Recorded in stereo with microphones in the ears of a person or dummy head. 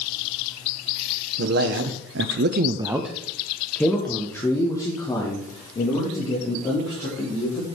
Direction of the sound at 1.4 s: 60° right (ahead or behind).